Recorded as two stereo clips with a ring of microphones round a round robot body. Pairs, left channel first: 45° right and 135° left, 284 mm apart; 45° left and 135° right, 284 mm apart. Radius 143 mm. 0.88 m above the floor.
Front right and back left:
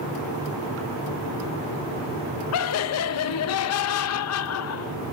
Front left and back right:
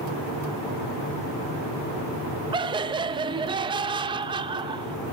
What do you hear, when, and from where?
2.5 s laughter: 65° right, 0.5 m